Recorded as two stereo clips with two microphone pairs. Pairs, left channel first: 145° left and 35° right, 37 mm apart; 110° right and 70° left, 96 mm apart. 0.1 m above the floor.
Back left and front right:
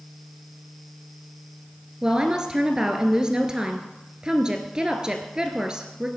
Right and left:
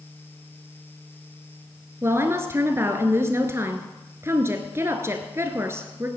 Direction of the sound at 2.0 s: 25° left.